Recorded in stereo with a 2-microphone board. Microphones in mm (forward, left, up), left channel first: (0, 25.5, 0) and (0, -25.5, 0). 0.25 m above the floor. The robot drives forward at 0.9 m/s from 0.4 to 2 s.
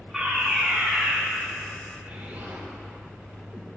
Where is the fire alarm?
5° right (ahead or behind), 4 m.